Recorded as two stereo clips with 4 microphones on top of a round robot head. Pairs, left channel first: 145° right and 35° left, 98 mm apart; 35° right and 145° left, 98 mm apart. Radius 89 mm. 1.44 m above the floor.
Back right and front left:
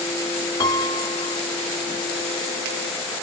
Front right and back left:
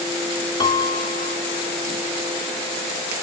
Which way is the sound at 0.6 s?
80° right.